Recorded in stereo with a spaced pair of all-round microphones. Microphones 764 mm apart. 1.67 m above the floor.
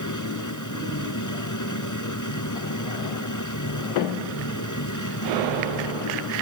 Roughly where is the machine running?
Left.